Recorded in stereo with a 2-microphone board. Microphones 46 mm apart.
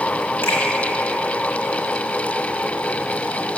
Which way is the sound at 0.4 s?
55° left (ahead or behind).